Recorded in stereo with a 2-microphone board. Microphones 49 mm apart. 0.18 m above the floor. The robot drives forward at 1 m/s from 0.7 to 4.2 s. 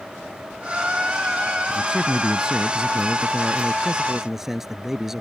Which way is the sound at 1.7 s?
15° right (ahead or behind).